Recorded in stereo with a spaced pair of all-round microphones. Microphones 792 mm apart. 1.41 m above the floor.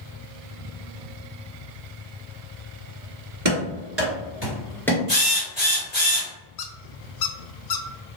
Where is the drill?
40° left (ahead or behind), 1.8 m.